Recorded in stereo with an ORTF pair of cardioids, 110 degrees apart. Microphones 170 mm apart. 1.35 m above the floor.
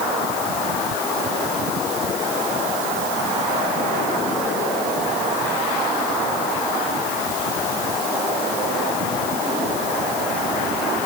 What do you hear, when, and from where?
Only background noise.